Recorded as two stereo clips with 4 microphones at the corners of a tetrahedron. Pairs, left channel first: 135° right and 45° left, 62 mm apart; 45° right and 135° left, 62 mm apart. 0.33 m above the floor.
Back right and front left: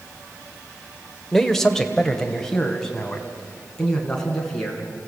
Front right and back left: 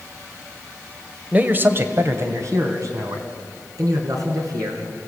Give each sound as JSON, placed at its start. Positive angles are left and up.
{"t": 1.3, "sound": "a man speaking", "azimuth_deg": 145, "distance_m": 1.2}